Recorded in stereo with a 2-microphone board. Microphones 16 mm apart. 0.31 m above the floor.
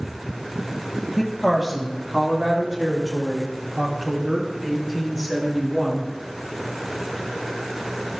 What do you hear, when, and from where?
1.2 s a woman speaking: 5° right (ahead or behind), 1.9 m; by 6.1 s 25° right (ahead or behind), 5 m